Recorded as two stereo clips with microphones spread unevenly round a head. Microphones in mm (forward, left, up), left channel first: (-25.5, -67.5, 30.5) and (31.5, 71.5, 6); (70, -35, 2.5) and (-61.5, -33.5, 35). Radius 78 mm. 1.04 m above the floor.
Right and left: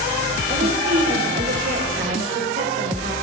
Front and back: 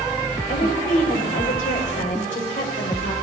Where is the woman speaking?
40° left, 5.5 m.